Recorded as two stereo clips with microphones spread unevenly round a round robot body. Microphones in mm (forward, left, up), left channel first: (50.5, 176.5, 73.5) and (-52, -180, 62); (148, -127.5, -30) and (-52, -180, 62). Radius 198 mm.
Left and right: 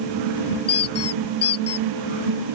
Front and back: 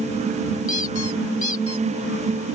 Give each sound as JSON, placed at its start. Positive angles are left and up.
{"t": 0.7, "sound": "a squeak", "azimuth_deg": 20}